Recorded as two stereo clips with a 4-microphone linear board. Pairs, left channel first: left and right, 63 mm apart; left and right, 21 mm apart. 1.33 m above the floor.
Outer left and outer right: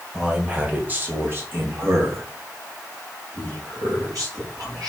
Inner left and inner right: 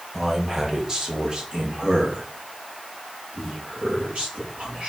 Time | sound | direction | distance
0.1 | a man speaking | 15° right (ahead or behind) | 1.9 m